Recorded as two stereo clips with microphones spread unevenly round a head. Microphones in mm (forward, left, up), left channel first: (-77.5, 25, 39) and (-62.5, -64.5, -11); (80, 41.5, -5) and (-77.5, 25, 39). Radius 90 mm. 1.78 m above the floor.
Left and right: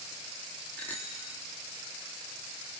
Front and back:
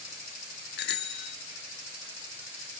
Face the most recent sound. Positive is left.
turn(degrees=30)